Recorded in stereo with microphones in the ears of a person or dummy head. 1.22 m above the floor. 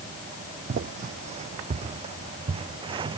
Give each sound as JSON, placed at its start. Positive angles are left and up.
{"t": 0.7, "sound": "footsteps", "side_deg": -45}